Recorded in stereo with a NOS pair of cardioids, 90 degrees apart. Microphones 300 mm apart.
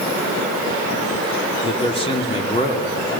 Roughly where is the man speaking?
Ahead.